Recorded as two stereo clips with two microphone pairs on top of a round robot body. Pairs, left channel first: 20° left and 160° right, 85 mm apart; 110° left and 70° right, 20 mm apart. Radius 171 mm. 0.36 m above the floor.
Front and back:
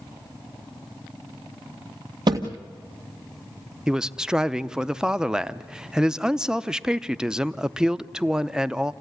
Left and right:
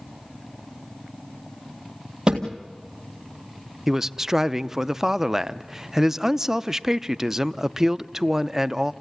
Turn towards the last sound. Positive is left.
turn(degrees=-110)